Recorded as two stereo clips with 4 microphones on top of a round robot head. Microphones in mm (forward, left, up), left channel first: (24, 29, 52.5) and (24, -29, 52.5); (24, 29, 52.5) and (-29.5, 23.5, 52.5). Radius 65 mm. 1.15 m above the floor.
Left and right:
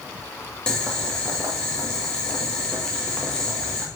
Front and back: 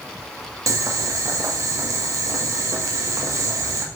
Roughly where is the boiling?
Behind.